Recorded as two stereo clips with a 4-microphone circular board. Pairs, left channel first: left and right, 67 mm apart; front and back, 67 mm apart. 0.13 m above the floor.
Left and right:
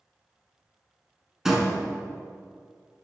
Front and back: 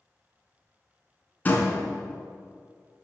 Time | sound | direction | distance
1.4 | a door slam | 15° right | 0.8 m